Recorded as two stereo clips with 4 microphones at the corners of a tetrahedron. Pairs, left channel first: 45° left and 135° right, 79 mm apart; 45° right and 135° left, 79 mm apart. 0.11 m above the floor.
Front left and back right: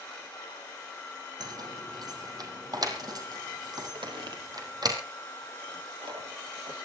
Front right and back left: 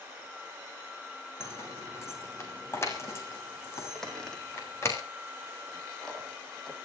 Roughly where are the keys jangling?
Right.